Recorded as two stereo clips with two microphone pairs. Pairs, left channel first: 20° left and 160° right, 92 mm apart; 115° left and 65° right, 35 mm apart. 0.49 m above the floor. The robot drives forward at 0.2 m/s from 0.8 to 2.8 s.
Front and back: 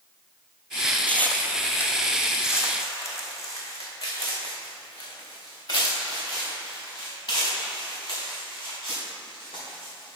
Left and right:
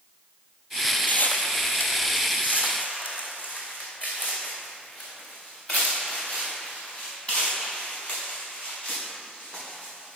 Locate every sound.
1.1 s footsteps: 90° left, 0.7 m; by 10.2 s 65° left, 5.5 m